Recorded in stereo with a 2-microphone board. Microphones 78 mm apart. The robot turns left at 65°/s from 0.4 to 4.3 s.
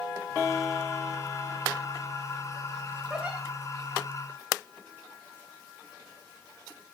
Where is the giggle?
5° right (ahead or behind), 5.5 m; by 3.4 s 25° right (ahead or behind), 5.5 m.